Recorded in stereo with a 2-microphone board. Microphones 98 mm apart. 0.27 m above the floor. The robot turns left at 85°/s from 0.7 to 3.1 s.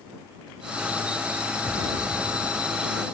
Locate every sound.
1.6 s an explosion: 160° right; by 2.9 s 95° left